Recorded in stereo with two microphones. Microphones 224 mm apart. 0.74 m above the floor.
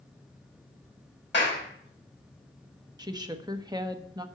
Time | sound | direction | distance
1.3 | a clap | 55° left (ahead or behind) | 3.5 m
3.0 | a woman speaking | 15° right (ahead or behind) | 1.0 m